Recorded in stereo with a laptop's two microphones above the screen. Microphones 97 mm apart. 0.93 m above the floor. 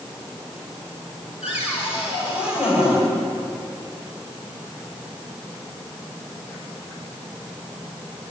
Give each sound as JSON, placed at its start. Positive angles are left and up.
{"t": 1.4, "sound": "a cupboard door", "side_deg": -10, "distance_m": 5.0}